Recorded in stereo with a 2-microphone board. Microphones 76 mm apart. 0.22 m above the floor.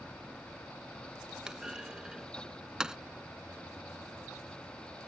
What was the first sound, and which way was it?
A clunk, 10° right (ahead or behind).